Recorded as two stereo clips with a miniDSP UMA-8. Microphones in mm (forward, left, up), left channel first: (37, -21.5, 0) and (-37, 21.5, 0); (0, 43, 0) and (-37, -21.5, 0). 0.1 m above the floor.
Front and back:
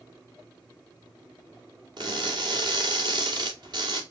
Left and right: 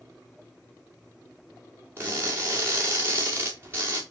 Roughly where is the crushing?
Behind.